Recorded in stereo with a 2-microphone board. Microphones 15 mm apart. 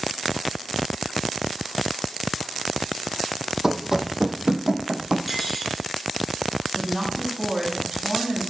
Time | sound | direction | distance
3.6 | running footsteps | 35° right (ahead or behind) | 0.7 m
5.3 | cutlery clinking | 5° right (ahead or behind) | 3 m
6.8 | a woman speaking | 35° right (ahead or behind) | 2.5 m